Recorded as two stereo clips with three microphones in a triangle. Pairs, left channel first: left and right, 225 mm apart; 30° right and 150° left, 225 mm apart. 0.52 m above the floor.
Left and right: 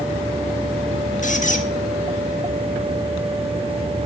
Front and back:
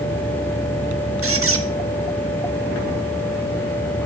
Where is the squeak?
140° left, 0.6 m.